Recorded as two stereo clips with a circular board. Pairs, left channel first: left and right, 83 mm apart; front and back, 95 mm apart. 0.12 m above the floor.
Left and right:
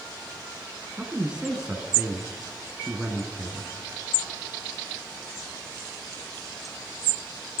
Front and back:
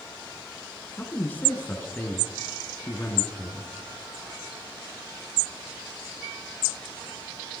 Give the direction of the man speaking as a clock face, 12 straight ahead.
1 o'clock.